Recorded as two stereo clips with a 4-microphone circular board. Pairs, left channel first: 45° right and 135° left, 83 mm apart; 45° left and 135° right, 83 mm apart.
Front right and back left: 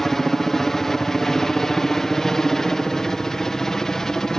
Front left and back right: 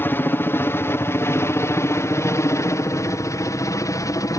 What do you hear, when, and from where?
0.0 s a helicopter: 35° left